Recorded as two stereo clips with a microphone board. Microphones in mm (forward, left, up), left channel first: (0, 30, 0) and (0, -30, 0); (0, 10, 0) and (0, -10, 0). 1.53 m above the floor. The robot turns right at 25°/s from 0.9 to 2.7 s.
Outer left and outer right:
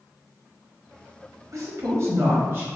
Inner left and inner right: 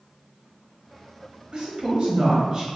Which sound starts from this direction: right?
A woman speaking, at 1.5 s.